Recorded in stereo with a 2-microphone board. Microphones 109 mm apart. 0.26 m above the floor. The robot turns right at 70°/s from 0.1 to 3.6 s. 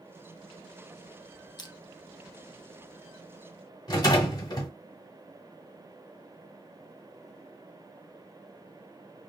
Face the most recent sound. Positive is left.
turn(degrees=40)  # may be behind; listen again after turning